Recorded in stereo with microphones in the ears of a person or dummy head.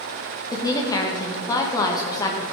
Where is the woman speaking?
15° left (ahead or behind), 1.7 m.